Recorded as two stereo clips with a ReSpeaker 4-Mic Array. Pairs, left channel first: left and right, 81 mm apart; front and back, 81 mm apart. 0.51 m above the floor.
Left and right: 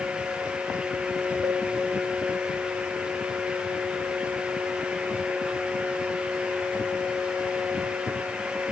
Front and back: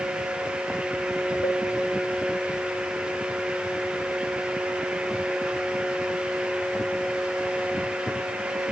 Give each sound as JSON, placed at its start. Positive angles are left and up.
{"t": 1.4, "sound": "a cowbell", "azimuth_deg": -35, "distance_m": 1.8}